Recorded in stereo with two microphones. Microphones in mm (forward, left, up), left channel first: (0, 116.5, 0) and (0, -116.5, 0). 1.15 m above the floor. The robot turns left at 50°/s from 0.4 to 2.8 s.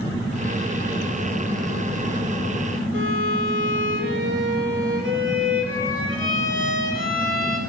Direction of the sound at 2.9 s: 55° right (ahead or behind).